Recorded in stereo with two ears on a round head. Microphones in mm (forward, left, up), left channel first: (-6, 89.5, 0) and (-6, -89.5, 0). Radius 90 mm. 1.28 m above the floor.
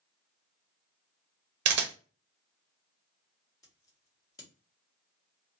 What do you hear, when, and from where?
1.6 s a camera shutter: 60° right (ahead or behind), 0.6 m
3.6 s scissors: 20° left (ahead or behind), 1.2 m